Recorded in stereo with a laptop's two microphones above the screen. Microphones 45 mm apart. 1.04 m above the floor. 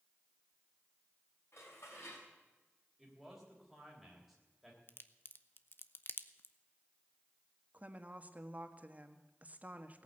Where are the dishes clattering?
65° left (ahead or behind), 5.5 m.